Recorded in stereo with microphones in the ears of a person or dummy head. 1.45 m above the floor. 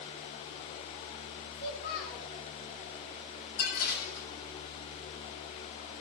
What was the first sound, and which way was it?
A child speaking, 55° left (ahead or behind).